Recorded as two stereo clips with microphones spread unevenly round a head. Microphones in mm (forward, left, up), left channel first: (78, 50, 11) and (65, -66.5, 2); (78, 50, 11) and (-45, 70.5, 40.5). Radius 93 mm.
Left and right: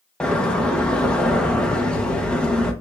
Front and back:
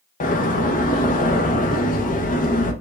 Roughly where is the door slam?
Ahead.